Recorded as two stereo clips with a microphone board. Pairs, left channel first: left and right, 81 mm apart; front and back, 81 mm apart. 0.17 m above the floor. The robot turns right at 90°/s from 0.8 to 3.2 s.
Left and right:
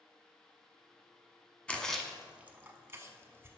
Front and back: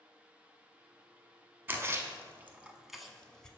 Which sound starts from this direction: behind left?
A splash, at 1.7 s.